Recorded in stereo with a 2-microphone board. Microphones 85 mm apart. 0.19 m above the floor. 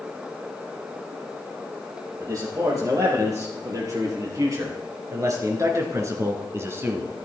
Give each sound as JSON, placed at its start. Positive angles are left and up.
{"t": 2.2, "sound": "a man speaking", "side_deg": -45, "distance_m": 6.0}